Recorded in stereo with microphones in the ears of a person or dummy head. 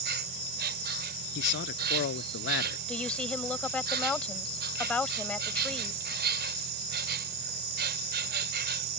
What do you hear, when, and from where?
0.0 s an insect: 55° right (ahead or behind)
1.4 s a man speaking: 60° left (ahead or behind)
2.9 s a woman speaking: 5° left (ahead or behind)